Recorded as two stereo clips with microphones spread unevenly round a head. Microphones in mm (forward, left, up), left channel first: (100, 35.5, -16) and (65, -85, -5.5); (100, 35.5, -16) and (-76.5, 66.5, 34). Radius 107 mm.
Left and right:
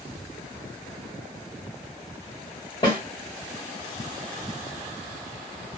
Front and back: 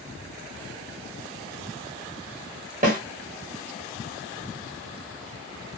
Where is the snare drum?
140° left, 1.5 m.